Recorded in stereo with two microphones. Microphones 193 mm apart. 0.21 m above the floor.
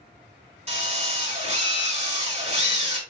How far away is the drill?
About 2 m.